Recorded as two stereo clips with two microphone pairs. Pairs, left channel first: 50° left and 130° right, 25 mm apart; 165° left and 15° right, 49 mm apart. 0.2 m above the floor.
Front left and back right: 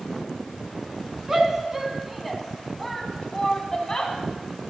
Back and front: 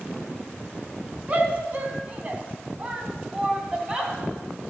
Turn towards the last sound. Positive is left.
turn(degrees=40)